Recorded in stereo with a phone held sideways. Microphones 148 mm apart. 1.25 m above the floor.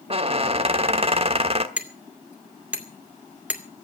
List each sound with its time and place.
0.1 s a squeak: 40° right (ahead or behind), 1.2 m
1.8 s hammering: 10° right (ahead or behind), 2.5 m